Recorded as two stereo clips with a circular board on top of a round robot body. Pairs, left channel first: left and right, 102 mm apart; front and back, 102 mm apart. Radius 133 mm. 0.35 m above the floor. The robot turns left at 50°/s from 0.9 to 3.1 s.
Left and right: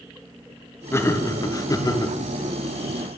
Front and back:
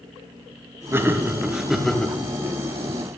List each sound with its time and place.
0.9 s laughter: 135° left, 0.9 m; by 2.2 s 75° left, 0.9 m